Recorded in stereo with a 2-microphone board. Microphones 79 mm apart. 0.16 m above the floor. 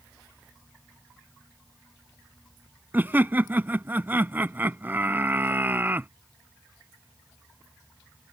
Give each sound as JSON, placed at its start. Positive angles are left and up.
{"t": 2.9, "sound": "laughter", "side_deg": -25}